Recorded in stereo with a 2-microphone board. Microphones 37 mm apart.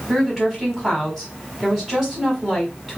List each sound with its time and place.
0.1 s a woman speaking: 10° right (ahead or behind), 1.1 m